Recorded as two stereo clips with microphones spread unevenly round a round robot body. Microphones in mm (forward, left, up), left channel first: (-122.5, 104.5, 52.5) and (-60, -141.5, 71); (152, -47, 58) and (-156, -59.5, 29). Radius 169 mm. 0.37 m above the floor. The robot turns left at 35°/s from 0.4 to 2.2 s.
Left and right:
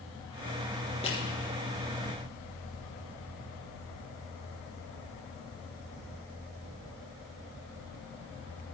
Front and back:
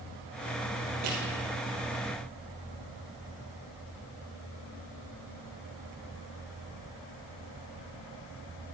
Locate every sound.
1.0 s crushing: 175° left, 3 m; by 1.2 s 170° left, 3 m